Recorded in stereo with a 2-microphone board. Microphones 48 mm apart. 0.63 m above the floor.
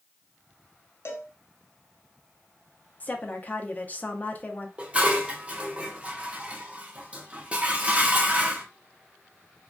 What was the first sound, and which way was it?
A cowbell, 60° left (ahead or behind).